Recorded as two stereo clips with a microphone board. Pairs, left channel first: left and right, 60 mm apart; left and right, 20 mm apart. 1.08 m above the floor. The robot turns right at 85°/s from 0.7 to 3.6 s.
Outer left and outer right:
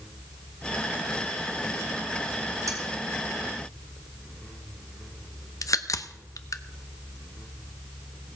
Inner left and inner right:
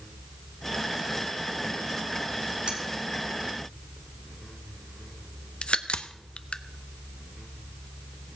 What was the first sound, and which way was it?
Cutlery clinking, 70° right (ahead or behind).